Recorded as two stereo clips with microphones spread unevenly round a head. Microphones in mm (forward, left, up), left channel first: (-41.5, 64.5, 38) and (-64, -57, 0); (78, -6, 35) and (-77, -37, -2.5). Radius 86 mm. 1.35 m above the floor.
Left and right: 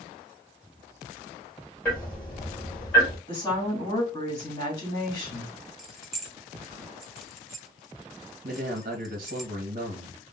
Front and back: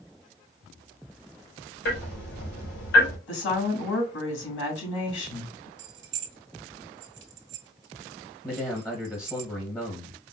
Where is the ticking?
Straight ahead, 3 m.